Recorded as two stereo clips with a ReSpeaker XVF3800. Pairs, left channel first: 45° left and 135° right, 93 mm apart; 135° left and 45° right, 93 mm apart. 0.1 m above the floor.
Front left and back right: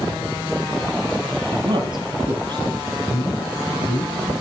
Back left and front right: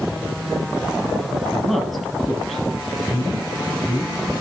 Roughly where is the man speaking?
Ahead left.